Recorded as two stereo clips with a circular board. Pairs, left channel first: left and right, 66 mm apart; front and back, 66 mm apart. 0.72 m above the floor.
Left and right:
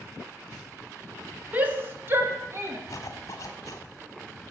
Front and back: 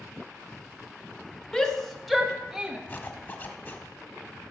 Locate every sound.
1.5 s a shout: 65° right, 1.2 m; by 2.8 s 105° right, 1.5 m
2.9 s a zipper: 55° left, 1.3 m